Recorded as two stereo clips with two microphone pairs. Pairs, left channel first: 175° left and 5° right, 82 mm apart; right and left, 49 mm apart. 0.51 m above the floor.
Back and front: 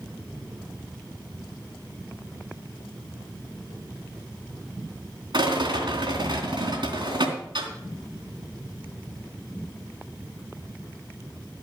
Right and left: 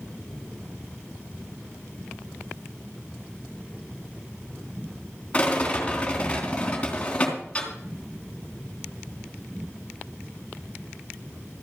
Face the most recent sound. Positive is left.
turn(degrees=-20)